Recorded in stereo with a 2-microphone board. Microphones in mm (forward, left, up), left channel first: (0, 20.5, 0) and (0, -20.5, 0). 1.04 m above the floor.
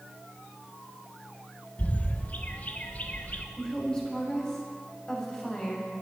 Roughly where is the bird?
Left.